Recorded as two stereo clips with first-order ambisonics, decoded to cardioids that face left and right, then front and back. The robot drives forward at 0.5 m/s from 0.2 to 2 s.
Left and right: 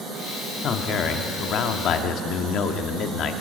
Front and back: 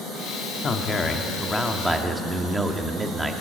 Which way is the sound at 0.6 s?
55° left.